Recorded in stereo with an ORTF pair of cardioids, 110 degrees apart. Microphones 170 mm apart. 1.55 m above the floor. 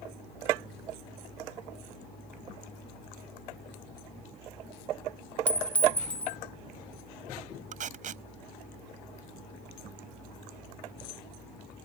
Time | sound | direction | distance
5.5 | a clink | 10° left | ?
7.7 | tape being pulled | 50° right | ?